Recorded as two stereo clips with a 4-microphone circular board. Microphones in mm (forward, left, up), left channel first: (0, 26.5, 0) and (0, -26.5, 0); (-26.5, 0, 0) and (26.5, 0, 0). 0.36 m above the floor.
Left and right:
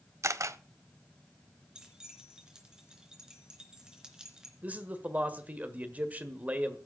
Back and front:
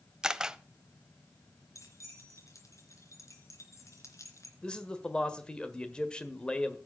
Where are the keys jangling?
165° right, 3 m.